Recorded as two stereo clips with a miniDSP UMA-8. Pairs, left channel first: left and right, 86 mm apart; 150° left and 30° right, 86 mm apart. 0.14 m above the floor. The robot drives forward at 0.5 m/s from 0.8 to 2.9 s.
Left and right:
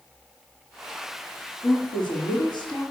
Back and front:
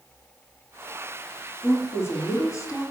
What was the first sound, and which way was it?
A woman speaking, 90° left.